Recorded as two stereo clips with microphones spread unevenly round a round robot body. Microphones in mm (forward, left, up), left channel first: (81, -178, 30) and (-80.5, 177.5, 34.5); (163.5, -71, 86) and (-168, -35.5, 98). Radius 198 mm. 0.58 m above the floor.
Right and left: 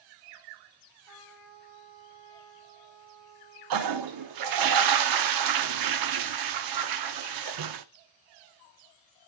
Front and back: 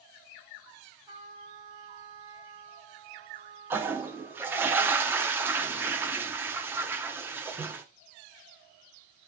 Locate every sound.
1.1 s a trumpet: 95° left, 4 m
3.7 s a toilet flushing: 90° left, 0.7 m